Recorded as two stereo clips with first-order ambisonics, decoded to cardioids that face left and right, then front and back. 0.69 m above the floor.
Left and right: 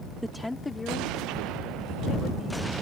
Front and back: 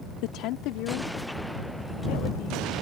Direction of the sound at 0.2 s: 5° right.